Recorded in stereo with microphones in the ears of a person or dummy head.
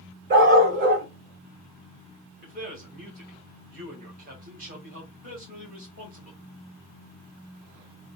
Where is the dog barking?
40° right (ahead or behind), 1.3 m.